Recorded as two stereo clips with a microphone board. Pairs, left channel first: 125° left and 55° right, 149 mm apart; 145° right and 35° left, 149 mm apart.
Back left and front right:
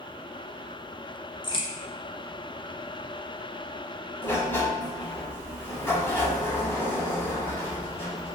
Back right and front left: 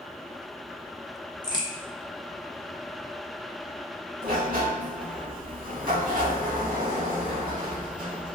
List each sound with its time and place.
1.4 s a crack: 165° left, 0.5 m
4.2 s a sliding door: 50° left, 0.6 m